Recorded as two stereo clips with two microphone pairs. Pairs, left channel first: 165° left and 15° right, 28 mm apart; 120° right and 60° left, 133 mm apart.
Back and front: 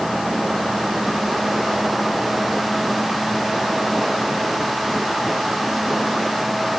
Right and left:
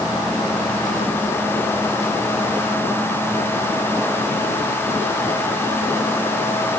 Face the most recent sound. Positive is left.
No sound to turn to.